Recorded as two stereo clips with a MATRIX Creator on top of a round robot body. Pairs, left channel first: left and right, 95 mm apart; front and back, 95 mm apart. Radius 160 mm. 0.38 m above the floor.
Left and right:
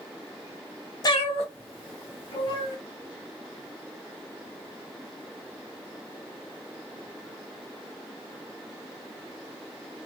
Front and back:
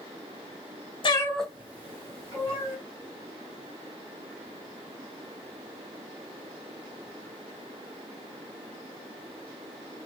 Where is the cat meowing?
40° left, 0.6 m; by 2.8 s 120° left, 2.5 m.